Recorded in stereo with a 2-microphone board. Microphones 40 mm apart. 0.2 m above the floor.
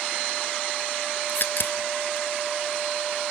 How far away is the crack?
About 0.7 m.